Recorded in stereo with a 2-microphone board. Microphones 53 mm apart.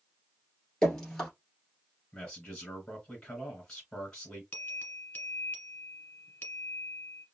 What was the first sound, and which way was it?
Dripping, 10° left (ahead or behind).